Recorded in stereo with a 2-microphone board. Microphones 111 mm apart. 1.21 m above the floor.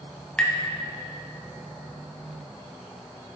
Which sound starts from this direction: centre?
Tapping, at 0.4 s.